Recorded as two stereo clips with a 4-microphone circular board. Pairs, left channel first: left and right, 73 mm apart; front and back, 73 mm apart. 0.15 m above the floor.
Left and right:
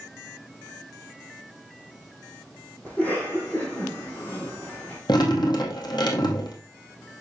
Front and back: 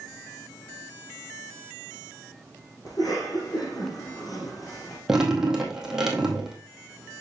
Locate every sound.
2.9 s a cough: 25° left, 3.5 m
5.1 s dripping: 95° left, 2 m